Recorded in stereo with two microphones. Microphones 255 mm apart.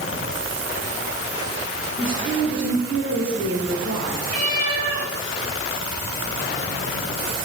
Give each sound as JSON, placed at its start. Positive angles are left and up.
{"t": 2.0, "sound": "a woman speaking", "side_deg": -70, "distance_m": 4.5}
{"t": 4.3, "sound": "a cat meowing", "side_deg": -75, "distance_m": 3.5}